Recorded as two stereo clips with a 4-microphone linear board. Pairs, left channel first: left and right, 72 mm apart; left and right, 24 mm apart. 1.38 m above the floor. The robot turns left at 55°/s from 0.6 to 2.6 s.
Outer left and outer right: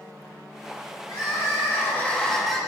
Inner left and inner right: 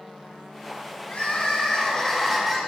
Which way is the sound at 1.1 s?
75° left.